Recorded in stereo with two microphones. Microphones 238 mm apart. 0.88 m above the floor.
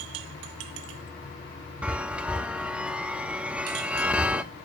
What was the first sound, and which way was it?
A chime, 5° right (ahead or behind).